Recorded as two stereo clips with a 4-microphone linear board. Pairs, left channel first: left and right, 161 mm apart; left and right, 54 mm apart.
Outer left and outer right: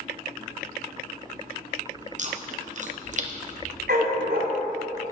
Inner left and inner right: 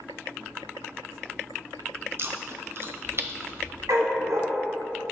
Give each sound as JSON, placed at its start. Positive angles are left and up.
{"t": 2.2, "sound": "chewing", "side_deg": -50, "distance_m": 0.8}
{"t": 3.9, "sound": "a dog barking", "side_deg": -75, "distance_m": 3.0}